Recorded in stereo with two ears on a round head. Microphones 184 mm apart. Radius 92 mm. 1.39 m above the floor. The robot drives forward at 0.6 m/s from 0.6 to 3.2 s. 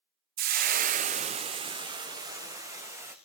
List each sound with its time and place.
0.4 s frying: 45° right (ahead or behind), 0.6 m; by 3.1 s 15° right (ahead or behind), 1.8 m